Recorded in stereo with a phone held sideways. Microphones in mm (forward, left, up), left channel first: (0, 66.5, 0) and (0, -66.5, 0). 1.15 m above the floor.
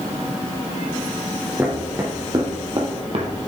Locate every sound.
1.6 s footsteps: 25° right (ahead or behind), 2.5 m; by 3.3 s 50° right (ahead or behind), 1.7 m